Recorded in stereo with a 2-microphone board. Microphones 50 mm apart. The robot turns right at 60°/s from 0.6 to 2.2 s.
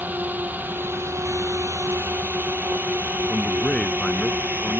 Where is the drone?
40° right (ahead or behind).